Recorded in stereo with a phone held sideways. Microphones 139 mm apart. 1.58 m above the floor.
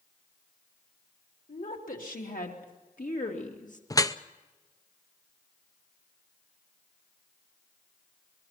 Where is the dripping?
25° left (ahead or behind), 0.6 m.